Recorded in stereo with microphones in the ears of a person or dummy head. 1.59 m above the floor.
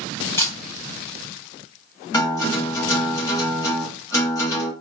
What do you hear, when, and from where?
0.4 s a camera shutter: 15° left (ahead or behind), 0.7 m
2.1 s a guitar: 15° left (ahead or behind), 0.8 m